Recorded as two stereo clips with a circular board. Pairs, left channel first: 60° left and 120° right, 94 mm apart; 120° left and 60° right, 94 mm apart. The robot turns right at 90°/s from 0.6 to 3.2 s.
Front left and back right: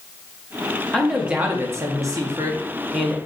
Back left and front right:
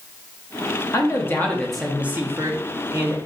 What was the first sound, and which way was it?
A man speaking, 135° left.